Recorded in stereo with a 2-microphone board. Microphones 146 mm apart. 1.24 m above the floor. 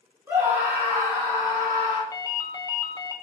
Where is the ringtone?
25° left (ahead or behind), 0.8 m.